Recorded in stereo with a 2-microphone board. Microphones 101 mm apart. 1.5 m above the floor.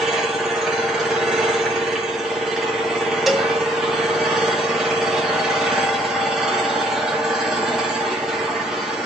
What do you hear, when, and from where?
0.0 s an engine running: 5° right (ahead or behind), 2.5 m
3.3 s a cowbell: 5° right (ahead or behind), 1.2 m